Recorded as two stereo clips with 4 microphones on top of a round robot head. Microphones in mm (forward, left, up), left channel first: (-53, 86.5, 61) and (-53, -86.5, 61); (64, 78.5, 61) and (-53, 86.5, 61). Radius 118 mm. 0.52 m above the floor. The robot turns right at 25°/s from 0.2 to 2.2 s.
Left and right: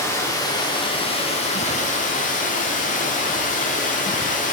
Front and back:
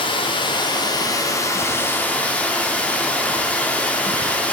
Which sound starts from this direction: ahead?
Running water, at 0.0 s.